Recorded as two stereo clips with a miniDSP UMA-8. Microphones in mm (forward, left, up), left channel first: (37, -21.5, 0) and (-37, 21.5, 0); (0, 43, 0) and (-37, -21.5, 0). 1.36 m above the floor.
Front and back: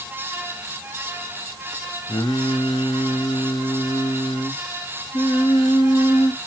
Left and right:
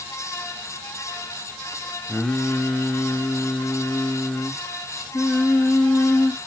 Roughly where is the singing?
Ahead.